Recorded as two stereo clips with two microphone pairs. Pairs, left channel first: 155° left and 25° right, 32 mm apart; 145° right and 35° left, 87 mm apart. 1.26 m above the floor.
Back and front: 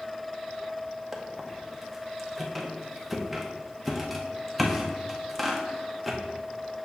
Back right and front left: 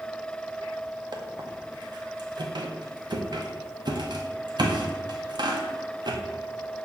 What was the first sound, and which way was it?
A squeak, 65° left.